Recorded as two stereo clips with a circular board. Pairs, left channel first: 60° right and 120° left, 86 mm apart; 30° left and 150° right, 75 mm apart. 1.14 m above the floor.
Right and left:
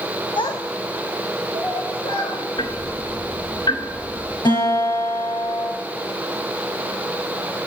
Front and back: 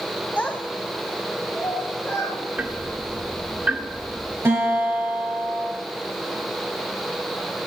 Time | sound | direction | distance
0.4 | a child speaking | 40° right | 0.8 m
2.6 | ticking | 85° right | 1.4 m
4.5 | a guitar | 90° right | 6 m